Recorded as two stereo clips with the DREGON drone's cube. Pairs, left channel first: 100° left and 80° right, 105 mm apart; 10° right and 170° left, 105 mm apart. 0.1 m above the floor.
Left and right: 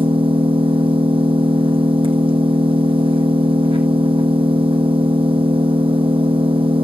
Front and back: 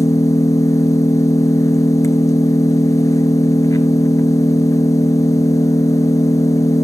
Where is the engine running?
65° right, 2.5 m.